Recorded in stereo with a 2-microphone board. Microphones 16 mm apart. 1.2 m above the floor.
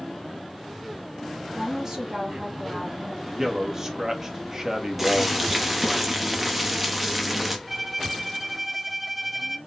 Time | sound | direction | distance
1.5 | a woman speaking | 30° right (ahead or behind) | 1.7 m
3.2 | a man speaking | 35° right (ahead or behind) | 1.1 m
5.0 | boiling | 15° right (ahead or behind) | 0.9 m
7.7 | a violin | 15° right (ahead or behind) | 0.7 m